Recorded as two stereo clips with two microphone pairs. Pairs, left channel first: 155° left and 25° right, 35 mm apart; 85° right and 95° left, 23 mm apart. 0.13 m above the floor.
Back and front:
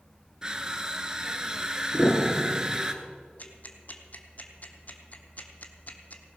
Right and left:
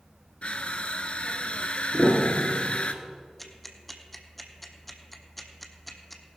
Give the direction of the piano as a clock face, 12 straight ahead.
9 o'clock.